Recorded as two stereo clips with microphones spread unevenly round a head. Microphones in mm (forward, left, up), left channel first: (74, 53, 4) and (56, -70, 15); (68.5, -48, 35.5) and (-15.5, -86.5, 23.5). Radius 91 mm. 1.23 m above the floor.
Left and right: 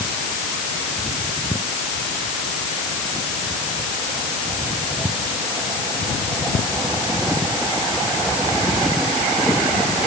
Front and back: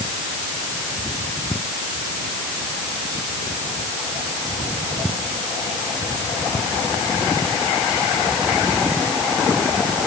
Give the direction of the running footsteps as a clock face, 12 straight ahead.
I don't hear running footsteps.